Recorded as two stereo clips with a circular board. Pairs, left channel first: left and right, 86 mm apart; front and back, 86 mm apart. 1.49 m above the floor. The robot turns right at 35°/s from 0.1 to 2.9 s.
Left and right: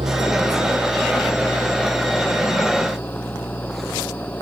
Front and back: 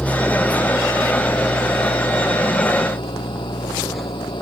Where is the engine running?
80° right; by 4.4 s 20° left.